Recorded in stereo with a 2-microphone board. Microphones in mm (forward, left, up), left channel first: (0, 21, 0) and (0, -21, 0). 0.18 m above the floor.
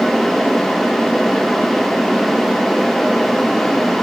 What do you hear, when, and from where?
Only background noise.